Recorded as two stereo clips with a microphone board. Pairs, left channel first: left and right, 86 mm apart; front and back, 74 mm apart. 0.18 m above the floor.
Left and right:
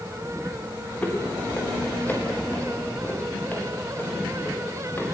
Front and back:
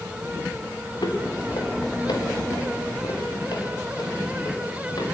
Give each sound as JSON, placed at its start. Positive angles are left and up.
{"t": 1.0, "sound": "footsteps", "azimuth_deg": 20, "distance_m": 6.0}